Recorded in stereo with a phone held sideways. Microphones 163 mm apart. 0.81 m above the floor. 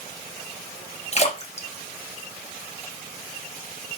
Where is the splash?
40° left (ahead or behind), 0.7 m.